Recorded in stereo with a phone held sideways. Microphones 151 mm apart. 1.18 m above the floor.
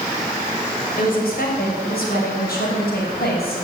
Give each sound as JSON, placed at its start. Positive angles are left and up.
{"t": 1.0, "sound": "a woman speaking", "side_deg": 65, "distance_m": 6.0}